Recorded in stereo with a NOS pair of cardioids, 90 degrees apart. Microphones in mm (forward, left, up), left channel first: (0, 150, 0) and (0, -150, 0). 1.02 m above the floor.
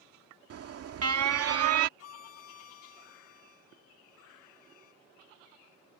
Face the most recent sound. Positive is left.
turn(degrees=55)